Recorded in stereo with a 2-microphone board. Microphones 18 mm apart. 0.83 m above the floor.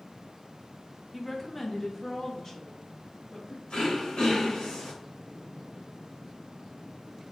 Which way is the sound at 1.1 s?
5° left (ahead or behind).